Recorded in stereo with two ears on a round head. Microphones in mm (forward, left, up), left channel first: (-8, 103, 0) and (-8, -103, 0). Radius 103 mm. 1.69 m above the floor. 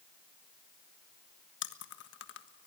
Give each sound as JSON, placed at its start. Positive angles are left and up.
{"t": 1.6, "sound": "chewing", "side_deg": 55, "distance_m": 1.5}